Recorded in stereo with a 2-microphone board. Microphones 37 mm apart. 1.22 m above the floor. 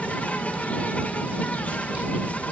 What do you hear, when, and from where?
0.0 s an insect: 45° left (ahead or behind)